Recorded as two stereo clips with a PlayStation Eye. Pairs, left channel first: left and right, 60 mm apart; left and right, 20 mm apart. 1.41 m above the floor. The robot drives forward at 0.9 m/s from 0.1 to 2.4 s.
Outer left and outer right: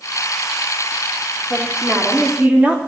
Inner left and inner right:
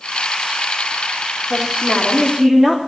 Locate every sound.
1.5 s a woman speaking: 15° right (ahead or behind), 3.5 m; by 2.8 s 20° right (ahead or behind), 3 m